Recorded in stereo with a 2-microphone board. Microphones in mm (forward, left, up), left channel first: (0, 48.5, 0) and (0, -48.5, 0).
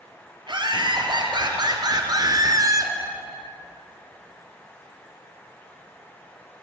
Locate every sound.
0.5 s laughter: 55° right (ahead or behind), 3 m; by 2.9 s 35° right (ahead or behind), 1.8 m